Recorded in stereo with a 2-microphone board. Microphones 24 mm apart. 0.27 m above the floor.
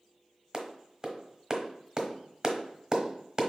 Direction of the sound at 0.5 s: 30° right (ahead or behind).